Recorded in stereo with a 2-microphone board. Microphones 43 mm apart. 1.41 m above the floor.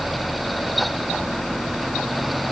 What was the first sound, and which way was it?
Only background noise.